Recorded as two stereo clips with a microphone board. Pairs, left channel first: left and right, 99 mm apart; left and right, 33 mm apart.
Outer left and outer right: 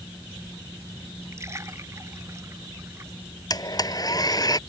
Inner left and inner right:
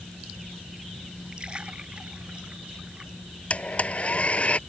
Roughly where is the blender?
Left.